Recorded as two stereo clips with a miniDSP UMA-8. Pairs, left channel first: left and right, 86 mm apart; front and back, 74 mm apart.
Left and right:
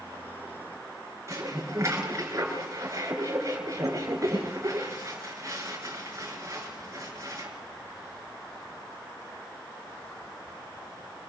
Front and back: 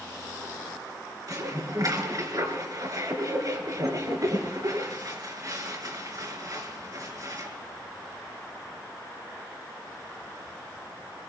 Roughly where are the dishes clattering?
Behind right.